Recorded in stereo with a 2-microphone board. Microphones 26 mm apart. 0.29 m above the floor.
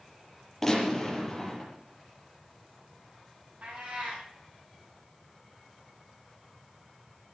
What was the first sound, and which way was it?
A gunshot, 10° left (ahead or behind).